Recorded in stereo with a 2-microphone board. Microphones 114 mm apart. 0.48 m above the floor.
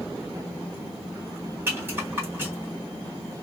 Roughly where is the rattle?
Right.